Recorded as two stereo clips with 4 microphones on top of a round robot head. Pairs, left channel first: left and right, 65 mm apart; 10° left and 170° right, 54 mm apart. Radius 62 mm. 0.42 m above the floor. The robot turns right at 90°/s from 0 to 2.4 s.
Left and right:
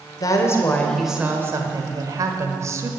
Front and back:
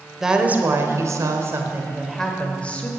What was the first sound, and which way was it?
A woman speaking, 110° left.